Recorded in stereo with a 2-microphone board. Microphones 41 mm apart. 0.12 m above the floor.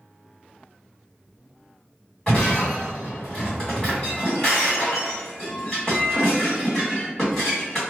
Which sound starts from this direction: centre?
Breaking glass, at 2.3 s.